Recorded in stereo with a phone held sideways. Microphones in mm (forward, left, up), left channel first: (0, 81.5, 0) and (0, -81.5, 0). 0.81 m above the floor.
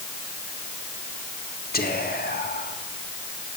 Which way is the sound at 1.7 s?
70° left (ahead or behind).